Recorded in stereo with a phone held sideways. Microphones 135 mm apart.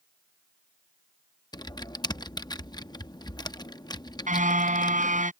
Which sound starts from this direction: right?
A car horn, at 4.3 s.